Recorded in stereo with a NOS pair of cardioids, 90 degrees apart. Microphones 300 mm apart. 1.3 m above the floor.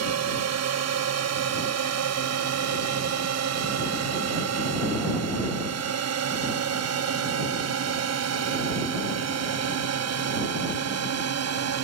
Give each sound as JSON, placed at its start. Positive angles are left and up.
{"t": 0.0, "sound": "a drone", "azimuth_deg": -60}